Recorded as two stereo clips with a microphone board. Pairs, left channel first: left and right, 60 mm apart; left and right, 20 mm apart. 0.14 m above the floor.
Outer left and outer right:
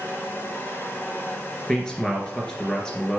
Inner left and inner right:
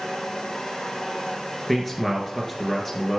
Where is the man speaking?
10° left (ahead or behind), 2.5 m.